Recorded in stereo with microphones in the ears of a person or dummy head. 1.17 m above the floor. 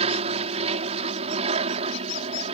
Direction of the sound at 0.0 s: 35° right (ahead or behind).